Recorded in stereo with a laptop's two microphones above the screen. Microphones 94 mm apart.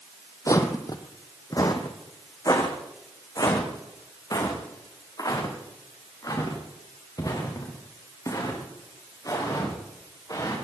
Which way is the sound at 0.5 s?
35° left (ahead or behind).